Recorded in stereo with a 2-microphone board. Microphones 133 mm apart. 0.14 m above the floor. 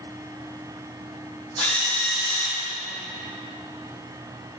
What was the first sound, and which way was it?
A drill, 10° left (ahead or behind).